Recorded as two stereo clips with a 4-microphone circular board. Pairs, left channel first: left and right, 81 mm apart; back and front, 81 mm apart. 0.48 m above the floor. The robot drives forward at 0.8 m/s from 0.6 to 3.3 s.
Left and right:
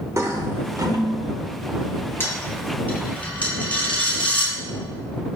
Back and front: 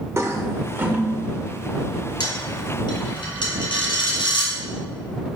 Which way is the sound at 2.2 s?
150° left.